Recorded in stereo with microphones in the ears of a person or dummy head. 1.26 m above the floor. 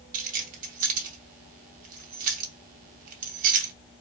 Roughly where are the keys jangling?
Right.